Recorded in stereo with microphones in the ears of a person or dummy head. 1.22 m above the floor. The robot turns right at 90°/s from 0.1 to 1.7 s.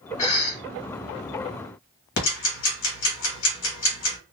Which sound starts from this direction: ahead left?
A cough, at 0.2 s.